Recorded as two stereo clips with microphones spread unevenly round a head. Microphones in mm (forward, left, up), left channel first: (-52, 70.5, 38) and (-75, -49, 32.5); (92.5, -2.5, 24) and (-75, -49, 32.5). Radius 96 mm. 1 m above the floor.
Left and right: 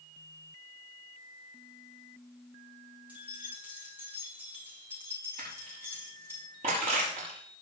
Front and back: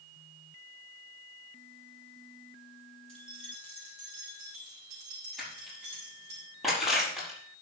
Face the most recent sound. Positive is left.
turn(degrees=-75)